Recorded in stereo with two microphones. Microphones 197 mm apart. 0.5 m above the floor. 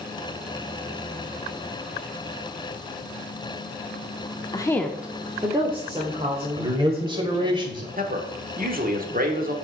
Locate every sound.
4.5 s a woman speaking: 20° left (ahead or behind), 0.7 m; by 7.6 s 35° right (ahead or behind), 2.5 m
6.6 s a man speaking: 25° right (ahead or behind), 1.8 m
8.0 s a man speaking: 45° right (ahead or behind), 1.2 m